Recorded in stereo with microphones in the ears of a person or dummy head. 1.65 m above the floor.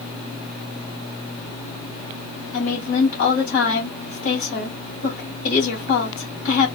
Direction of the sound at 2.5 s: 55° left (ahead or behind).